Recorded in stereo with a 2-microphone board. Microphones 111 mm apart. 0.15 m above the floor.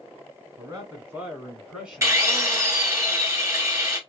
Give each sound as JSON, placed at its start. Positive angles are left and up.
{"t": 0.6, "sound": "a man speaking", "side_deg": -35, "distance_m": 1.9}
{"t": 2.0, "sound": "a drill", "side_deg": -30, "distance_m": 1.2}